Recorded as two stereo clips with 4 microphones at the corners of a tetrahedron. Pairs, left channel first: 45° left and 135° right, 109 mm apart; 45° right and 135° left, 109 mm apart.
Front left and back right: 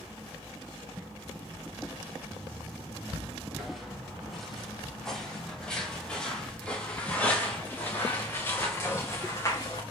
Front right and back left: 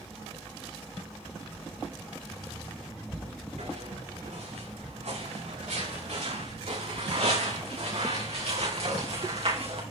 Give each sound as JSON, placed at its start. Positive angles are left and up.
{"t": 3.6, "sound": "footsteps", "azimuth_deg": 135, "distance_m": 7.0}